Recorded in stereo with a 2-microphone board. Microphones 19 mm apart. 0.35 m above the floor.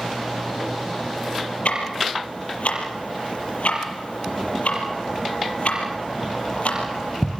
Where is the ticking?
75° left (ahead or behind), 6 m.